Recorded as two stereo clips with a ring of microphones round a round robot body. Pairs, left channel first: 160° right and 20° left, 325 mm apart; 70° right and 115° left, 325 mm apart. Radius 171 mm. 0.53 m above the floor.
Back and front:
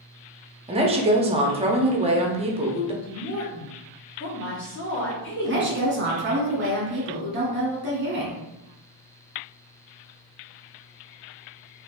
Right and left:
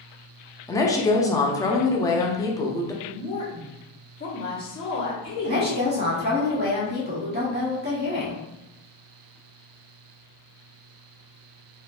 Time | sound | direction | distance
0.7 | a woman speaking | 5° right | 0.6 m
3.0 | a woman speaking | 135° right | 1.4 m
5.4 | a woman speaking | 65° left | 1.4 m